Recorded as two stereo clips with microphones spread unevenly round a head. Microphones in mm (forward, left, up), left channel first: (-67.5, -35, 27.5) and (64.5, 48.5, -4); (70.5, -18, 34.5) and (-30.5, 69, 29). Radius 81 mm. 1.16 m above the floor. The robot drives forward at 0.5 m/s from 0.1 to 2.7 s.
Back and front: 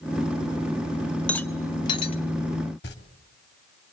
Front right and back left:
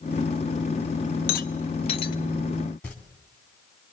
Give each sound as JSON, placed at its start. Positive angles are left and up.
{"t": 1.3, "sound": "a rattle", "azimuth_deg": -70, "distance_m": 0.9}
{"t": 2.8, "sound": "tearing paper", "azimuth_deg": -125, "distance_m": 3.0}